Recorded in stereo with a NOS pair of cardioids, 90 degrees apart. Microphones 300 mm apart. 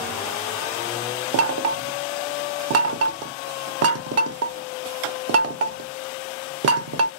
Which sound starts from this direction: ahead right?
Knocking, at 1.3 s.